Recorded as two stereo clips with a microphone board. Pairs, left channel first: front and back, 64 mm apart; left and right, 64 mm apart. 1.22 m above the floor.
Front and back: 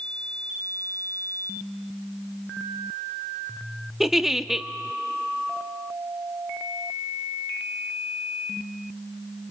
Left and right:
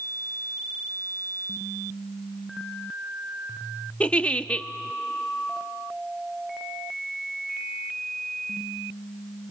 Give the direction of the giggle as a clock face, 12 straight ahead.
8 o'clock.